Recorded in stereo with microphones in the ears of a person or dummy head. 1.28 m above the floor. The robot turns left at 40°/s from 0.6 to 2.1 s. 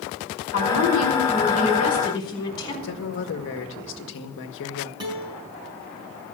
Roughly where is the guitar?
Right.